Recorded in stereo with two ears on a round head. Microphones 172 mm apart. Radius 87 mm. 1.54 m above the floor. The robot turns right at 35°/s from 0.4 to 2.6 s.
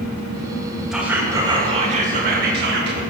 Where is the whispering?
175° right, 1.7 m; by 3.0 s 120° right, 1.7 m.